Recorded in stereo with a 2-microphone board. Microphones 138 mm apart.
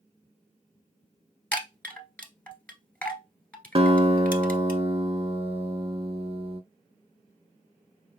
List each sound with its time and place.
1.5 s a chime: 10° left (ahead or behind), 1.0 m
3.8 s a guitar: 45° right (ahead or behind), 0.5 m